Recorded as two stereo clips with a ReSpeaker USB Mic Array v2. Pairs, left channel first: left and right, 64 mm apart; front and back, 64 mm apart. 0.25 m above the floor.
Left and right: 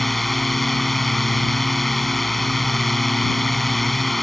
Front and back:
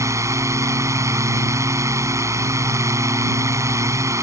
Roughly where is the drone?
Behind.